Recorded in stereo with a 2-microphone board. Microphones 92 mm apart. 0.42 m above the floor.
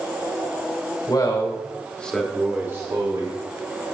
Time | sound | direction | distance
1.1 | a man speaking | 50° left (ahead or behind) | 1.4 m